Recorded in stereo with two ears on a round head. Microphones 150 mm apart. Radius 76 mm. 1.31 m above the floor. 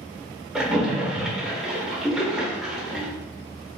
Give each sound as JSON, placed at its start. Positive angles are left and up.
{"t": 0.6, "sound": "a splash", "side_deg": -5, "distance_m": 0.7}